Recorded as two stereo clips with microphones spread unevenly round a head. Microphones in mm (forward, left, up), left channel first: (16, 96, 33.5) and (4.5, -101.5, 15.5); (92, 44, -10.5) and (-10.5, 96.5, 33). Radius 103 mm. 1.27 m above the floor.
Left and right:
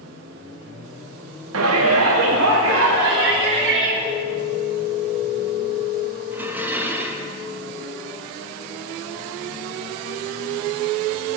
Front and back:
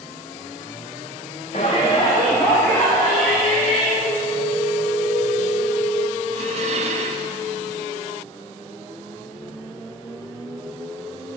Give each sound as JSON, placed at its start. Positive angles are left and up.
{"t": 1.5, "sound": "a shout", "azimuth_deg": -80, "distance_m": 0.9}
{"t": 4.0, "sound": "a phone ringing", "azimuth_deg": -15, "distance_m": 3.5}
{"t": 6.3, "sound": "dishes clattering", "azimuth_deg": -175, "distance_m": 0.9}